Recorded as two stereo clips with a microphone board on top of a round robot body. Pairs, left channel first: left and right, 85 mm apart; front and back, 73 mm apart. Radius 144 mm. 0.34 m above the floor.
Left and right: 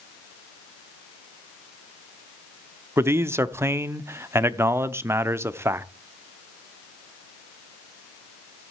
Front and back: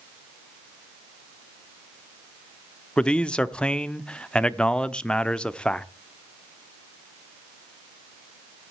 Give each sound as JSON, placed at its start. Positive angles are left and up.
{"t": 3.0, "sound": "a man speaking", "azimuth_deg": -65, "distance_m": 1.0}